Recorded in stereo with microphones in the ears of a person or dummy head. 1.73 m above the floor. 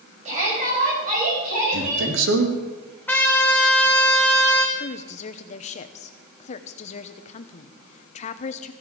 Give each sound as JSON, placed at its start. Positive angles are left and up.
{"t": 0.2, "sound": "a shout", "side_deg": -40, "distance_m": 8.5}
{"t": 1.7, "sound": "a man speaking", "side_deg": -70, "distance_m": 3.5}
{"t": 3.1, "sound": "a trumpet", "side_deg": 10, "distance_m": 2.5}
{"t": 4.8, "sound": "a woman speaking", "side_deg": 40, "distance_m": 1.0}